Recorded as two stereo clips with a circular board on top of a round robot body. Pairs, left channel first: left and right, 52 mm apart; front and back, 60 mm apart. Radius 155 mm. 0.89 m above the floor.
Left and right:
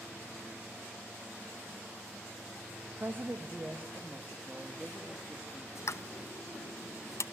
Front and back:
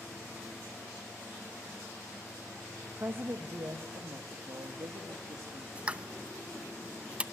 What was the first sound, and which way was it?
A woman speaking, 130° right.